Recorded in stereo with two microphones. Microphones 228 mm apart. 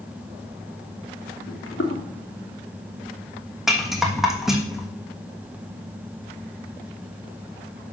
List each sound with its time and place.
1.5 s footsteps: 65° left (ahead or behind), 2.5 m
3.7 s a rattle: centre (ahead or behind), 1.3 m